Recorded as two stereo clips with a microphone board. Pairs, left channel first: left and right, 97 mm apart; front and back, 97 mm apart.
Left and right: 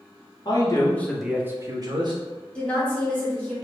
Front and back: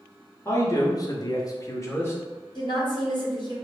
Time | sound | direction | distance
0.5 | a man speaking | 55° left | 0.9 m
2.5 | a woman speaking | 15° left | 1.4 m